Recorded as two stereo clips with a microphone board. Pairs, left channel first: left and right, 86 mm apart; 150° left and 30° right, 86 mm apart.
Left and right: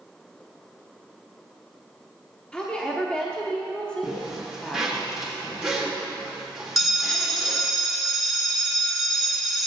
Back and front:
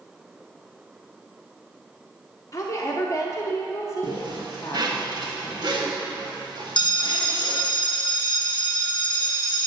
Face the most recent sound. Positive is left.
turn(degrees=180)